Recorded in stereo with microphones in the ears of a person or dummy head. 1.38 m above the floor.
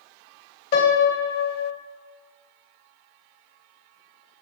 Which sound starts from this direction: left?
A piano, at 0.7 s.